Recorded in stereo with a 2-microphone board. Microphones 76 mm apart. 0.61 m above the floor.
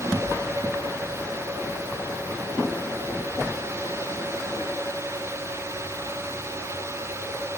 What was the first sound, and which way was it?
Only background noise.